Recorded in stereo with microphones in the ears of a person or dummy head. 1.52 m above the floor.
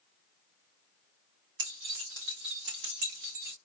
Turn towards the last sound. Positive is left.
turn(degrees=-50)  # may be behind; listen again after turning